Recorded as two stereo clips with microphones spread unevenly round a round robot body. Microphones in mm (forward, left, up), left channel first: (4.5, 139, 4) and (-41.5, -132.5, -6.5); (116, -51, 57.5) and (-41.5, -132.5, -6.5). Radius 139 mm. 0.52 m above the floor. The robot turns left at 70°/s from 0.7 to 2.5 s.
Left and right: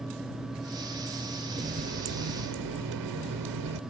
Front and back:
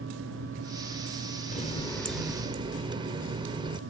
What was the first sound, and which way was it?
A running tap, 30° right.